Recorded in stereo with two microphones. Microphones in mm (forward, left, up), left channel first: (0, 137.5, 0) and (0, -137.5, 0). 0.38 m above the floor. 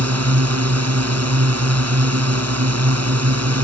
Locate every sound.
0.0 s a drone: 65° right (ahead or behind)